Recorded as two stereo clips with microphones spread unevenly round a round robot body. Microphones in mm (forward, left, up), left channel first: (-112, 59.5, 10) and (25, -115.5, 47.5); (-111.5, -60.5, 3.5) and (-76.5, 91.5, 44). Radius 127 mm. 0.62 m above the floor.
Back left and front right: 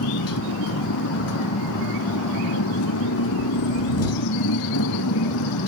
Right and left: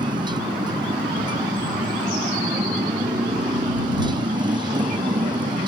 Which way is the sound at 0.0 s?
135° left.